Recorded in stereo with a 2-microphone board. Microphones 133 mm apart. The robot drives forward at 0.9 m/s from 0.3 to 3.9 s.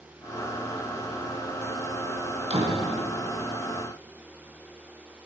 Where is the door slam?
55° right (ahead or behind), 2.5 m; by 2.9 s 50° right (ahead or behind), 3 m.